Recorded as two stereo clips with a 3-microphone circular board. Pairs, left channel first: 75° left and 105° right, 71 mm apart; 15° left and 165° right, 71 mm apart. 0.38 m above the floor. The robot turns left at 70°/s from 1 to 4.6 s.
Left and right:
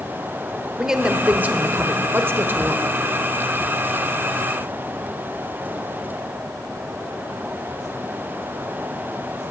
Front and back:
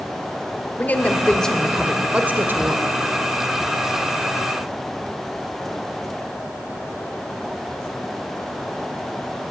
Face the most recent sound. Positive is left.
turn(degrees=80)